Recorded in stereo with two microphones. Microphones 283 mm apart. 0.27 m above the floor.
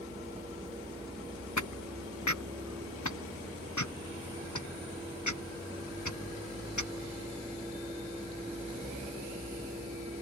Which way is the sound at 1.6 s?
80° left.